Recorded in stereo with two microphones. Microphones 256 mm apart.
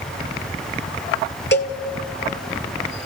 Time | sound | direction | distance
1.5 | a cowbell | 45° left (ahead or behind) | 1.5 m